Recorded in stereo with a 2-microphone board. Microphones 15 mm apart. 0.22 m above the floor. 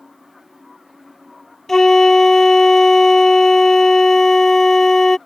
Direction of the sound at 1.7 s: 25° left (ahead or behind).